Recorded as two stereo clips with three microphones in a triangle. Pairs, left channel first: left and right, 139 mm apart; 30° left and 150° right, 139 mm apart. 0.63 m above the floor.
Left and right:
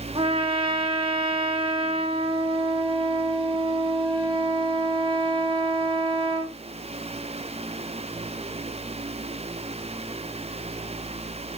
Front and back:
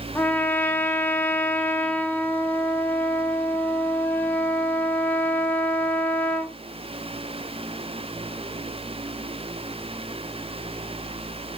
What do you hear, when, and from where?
0.1 s a trumpet: 45° right, 1.0 m